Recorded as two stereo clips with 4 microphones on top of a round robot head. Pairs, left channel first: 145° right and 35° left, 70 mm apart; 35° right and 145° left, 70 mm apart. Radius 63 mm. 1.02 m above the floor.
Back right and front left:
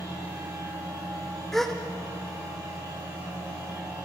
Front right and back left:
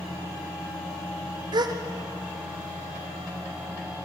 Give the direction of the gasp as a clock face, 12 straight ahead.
8 o'clock.